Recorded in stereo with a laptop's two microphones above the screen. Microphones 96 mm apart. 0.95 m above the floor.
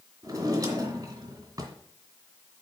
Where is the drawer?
35° right (ahead or behind), 2.5 m.